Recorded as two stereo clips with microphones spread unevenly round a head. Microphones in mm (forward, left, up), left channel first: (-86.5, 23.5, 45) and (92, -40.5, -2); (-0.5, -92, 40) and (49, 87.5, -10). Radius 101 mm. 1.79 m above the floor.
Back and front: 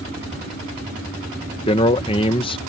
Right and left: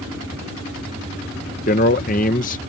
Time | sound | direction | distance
1.7 | a man speaking | 145° right | ?